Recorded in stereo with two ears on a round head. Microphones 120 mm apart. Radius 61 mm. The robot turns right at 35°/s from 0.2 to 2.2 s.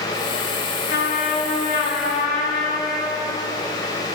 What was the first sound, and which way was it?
A trumpet, 85° left.